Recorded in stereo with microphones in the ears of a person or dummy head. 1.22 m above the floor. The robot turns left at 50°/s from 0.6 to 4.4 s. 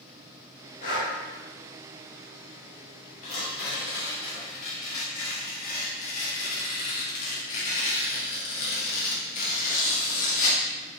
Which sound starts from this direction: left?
Breathing, at 0.8 s.